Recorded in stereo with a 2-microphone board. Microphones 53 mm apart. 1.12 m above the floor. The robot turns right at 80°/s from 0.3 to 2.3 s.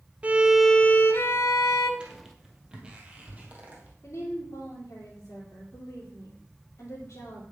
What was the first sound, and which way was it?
A violin, 25° right.